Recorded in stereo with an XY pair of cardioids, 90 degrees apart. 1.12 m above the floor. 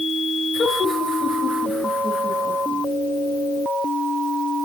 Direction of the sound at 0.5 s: 50° left.